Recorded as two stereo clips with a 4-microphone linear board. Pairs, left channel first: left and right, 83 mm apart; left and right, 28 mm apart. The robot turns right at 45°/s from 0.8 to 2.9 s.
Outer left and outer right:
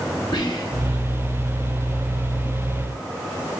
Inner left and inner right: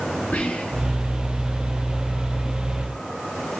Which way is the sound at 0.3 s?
75° left (ahead or behind).